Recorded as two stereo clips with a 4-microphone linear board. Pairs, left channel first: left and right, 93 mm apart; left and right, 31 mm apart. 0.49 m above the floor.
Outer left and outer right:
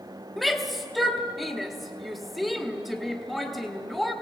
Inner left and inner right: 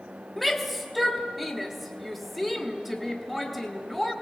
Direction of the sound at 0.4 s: Centre (ahead or behind).